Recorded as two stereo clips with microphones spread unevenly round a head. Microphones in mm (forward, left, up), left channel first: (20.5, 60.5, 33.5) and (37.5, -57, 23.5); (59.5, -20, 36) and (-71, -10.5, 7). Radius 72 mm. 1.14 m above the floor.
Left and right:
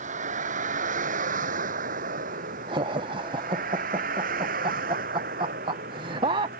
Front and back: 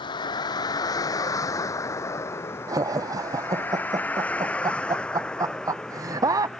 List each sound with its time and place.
0.0 s a vehicle: 60° right; by 6.6 s 90° right
2.7 s laughter: 130° right